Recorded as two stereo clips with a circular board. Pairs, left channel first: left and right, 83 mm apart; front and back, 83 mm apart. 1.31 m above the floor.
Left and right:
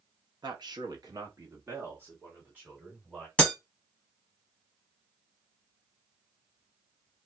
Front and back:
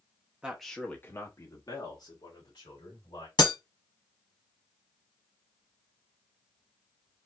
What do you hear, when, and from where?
0.4 s a man speaking: 105° right, 0.9 m; by 3.3 s 15° right, 3 m
3.4 s breaking glass: 15° left, 1.0 m